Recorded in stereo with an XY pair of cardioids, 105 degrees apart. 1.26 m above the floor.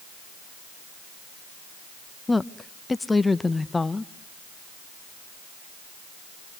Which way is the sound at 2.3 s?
15° left.